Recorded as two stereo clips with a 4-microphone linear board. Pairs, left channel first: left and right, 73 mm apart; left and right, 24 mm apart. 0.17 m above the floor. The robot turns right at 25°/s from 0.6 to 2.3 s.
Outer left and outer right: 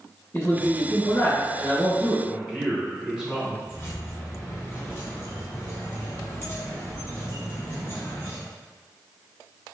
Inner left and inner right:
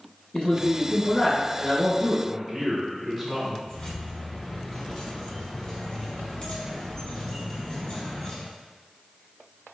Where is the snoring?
I don't hear snoring.